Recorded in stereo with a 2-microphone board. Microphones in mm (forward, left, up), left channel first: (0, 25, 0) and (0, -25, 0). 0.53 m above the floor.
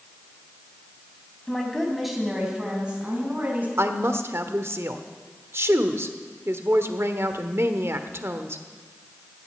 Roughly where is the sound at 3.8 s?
Right.